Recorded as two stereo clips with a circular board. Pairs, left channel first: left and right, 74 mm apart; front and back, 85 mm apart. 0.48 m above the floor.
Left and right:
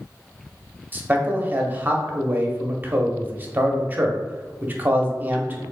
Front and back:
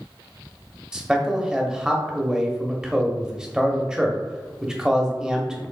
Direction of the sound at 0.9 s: 105° right.